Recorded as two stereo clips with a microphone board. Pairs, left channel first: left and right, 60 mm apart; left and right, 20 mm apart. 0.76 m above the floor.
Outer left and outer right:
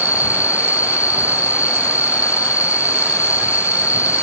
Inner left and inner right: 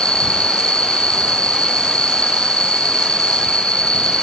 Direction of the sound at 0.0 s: 60° left (ahead or behind).